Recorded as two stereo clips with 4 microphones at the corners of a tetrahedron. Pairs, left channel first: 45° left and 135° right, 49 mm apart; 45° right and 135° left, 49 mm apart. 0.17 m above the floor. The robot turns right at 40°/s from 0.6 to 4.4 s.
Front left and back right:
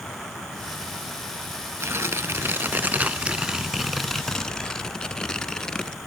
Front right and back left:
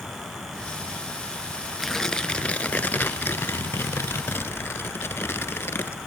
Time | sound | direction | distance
1.8 | tearing paper | 130° right | 0.8 m